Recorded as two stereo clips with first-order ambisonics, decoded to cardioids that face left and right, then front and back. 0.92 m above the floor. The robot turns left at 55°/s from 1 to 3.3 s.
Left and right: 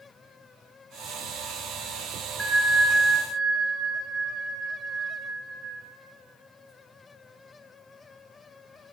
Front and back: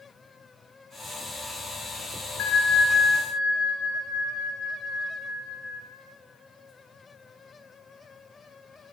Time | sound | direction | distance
2.4 | a bell | 10° left | 1.1 m